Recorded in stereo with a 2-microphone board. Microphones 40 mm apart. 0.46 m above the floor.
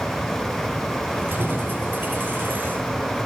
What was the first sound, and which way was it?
Keys jangling, 55° right (ahead or behind).